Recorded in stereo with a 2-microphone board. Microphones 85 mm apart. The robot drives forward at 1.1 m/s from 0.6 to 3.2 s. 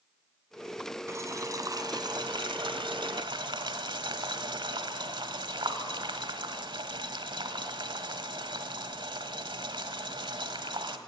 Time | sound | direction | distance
1.1 | boiling | 35° right (ahead or behind) | 2.5 m